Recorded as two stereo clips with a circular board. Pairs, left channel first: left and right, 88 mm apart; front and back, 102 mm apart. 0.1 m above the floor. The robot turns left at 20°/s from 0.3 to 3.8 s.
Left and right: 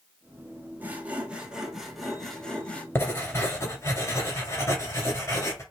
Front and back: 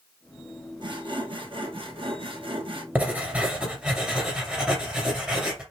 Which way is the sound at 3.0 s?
125° left.